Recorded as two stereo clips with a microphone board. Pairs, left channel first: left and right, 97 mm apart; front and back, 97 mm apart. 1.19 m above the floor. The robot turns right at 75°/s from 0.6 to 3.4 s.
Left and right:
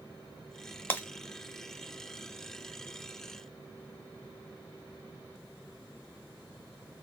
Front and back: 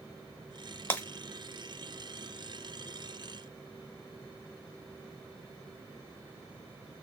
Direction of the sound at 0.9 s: 45° left.